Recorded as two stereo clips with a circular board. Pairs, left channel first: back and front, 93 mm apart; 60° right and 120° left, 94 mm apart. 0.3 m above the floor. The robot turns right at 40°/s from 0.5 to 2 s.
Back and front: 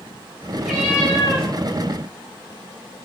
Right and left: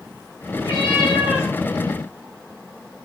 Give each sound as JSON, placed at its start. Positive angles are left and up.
{"t": 0.6, "sound": "a cat meowing", "azimuth_deg": -90, "distance_m": 4.0}